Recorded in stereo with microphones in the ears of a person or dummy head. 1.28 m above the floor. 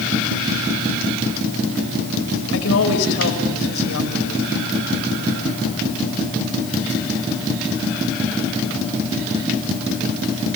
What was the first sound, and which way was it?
A woman speaking, 90° left.